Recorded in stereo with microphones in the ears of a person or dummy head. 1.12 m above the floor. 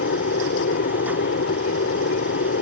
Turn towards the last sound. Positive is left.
turn(degrees=50)  # may be behind; listen again after turning